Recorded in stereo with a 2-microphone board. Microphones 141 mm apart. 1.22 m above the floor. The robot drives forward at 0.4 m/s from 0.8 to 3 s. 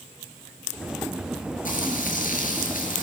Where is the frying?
80° left, 7 m; by 3.0 s 85° left, 7 m.